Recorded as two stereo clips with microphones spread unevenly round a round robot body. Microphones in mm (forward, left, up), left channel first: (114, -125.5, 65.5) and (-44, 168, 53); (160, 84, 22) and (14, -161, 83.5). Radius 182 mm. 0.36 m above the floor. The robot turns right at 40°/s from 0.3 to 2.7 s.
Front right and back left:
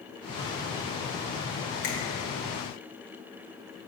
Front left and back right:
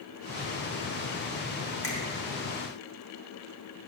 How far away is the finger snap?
About 1.5 m.